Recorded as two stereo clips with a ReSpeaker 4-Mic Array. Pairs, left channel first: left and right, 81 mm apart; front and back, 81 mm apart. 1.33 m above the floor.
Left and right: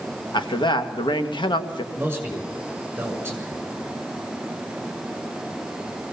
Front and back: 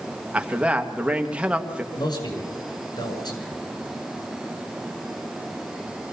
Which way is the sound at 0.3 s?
105° left.